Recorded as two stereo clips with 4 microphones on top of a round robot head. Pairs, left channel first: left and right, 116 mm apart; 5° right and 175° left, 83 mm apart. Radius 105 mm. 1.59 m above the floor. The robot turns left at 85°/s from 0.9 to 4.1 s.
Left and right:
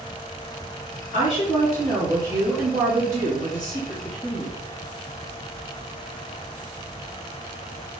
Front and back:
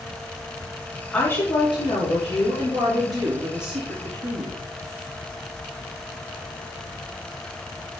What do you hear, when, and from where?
1.1 s a woman speaking: 75° left, 3 m; by 4.6 s straight behind, 3 m